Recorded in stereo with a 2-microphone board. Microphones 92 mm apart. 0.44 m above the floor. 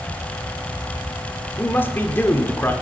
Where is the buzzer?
I don't hear a buzzer.